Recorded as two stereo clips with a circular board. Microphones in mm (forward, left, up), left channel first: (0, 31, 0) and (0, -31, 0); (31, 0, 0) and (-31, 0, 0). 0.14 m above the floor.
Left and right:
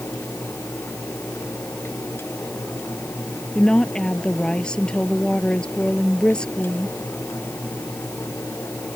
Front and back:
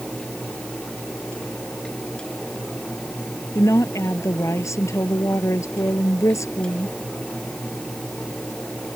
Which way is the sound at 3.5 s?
15° left.